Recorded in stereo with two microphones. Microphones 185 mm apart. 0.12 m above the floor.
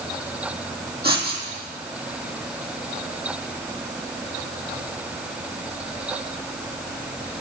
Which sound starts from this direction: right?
Writing, at 1.0 s.